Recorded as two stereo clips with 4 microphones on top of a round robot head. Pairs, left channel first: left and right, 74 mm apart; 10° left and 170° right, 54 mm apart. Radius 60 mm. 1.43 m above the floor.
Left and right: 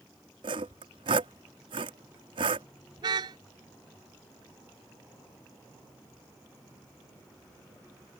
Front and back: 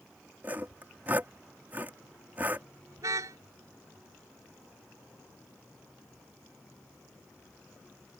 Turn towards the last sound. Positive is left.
turn(degrees=-130)